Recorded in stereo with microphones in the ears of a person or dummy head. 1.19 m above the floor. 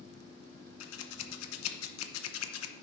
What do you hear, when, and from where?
0.8 s scissors: 80° left, 0.8 m